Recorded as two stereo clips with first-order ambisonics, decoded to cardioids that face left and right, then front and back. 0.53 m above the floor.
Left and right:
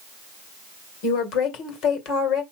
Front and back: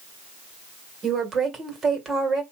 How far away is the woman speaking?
About 2 m.